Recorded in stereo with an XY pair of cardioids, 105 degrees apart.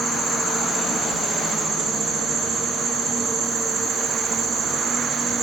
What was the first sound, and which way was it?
An insect, 55° right.